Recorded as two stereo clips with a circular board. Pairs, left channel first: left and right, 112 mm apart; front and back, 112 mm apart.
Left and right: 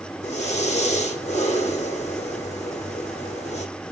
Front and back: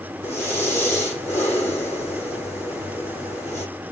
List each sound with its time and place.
0.2 s breathing: 70° left, 8 m